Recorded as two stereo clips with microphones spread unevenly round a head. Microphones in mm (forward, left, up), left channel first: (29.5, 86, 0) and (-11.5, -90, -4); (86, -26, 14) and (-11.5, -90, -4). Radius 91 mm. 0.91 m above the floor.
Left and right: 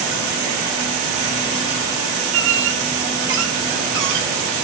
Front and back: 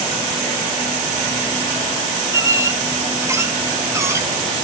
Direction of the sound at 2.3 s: 80° right.